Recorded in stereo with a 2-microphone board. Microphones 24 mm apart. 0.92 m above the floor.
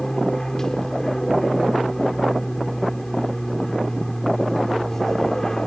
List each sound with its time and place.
0.0 s an aircraft: 20° left (ahead or behind)